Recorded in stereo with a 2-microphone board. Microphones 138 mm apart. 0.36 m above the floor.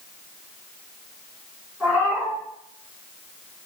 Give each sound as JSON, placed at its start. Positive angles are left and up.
{"t": 1.8, "sound": "a cat meowing", "side_deg": -5, "distance_m": 1.8}